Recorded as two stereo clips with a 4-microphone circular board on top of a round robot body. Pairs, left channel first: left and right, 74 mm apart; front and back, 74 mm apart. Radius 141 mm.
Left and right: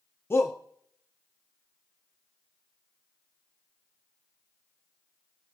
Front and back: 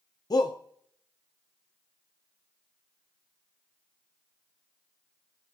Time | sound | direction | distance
0.3 | a shout | 30° left | 0.9 m